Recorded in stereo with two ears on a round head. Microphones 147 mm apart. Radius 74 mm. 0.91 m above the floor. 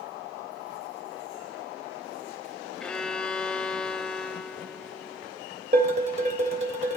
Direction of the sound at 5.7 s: 45° right (ahead or behind).